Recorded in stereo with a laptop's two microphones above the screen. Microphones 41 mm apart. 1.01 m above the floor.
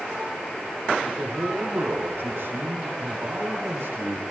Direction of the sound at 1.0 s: 80° right.